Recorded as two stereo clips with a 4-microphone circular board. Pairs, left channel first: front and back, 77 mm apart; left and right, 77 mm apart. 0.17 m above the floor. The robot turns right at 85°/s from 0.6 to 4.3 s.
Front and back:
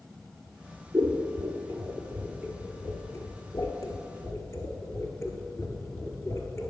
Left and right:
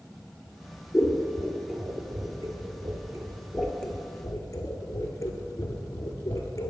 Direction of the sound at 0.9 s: 125° left.